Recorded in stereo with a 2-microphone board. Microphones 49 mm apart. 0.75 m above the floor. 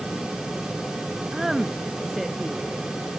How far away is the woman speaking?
About 0.7 m.